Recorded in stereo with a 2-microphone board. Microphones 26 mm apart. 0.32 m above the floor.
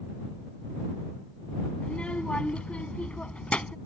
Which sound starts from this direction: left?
A child speaking, at 1.8 s.